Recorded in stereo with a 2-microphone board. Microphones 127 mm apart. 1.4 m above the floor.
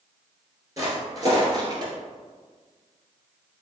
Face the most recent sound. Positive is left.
turn(degrees=-35)  # may be behind; listen again after turning